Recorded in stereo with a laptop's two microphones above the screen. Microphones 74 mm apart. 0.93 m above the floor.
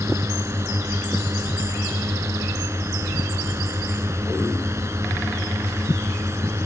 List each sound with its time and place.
0.0 s a drone: 40° right (ahead or behind)